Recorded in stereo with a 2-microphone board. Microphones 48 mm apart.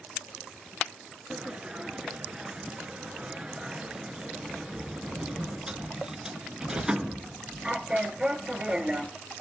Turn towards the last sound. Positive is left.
turn(degrees=-20)  # may be behind; listen again after turning